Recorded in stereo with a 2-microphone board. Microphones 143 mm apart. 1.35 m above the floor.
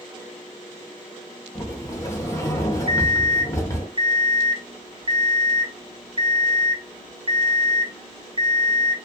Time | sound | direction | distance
1.6 | a sliding door | 20° left (ahead or behind) | 0.8 m
2.9 | an alarm clock | 40° right (ahead or behind) | 0.5 m